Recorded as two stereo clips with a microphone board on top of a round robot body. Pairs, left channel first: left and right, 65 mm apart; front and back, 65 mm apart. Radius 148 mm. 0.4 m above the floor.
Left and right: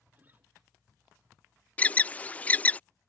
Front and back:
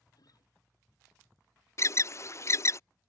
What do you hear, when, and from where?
0.1 s a guitar: 25° right
1.8 s an alarm: 25° left